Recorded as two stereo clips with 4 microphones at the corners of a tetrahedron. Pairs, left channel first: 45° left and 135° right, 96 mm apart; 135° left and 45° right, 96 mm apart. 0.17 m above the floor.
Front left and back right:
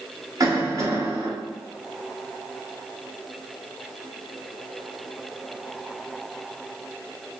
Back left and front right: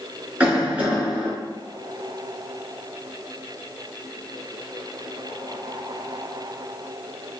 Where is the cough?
115° right, 1.4 m.